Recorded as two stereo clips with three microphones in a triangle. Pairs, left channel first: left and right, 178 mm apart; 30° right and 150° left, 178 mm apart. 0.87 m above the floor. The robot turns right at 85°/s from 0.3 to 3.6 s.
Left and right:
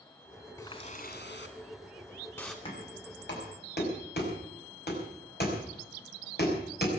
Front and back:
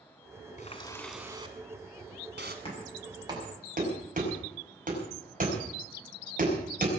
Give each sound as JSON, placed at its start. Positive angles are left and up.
{"t": 0.6, "sound": "a running tap", "azimuth_deg": 15, "distance_m": 2.5}
{"t": 2.6, "sound": "knocking", "azimuth_deg": 30, "distance_m": 5.5}